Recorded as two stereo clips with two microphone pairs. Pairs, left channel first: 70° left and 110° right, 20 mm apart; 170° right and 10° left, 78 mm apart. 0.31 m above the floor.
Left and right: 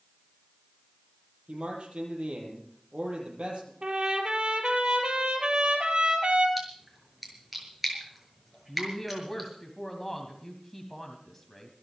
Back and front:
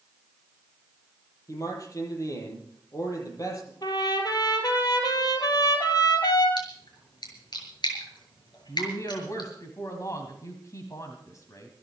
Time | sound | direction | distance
1.5 | a man speaking | 125° right | 8 m
3.8 | a trumpet | 140° right | 3 m
6.6 | a splash | 170° left | 6.5 m
8.7 | a woman speaking | 155° left | 2.5 m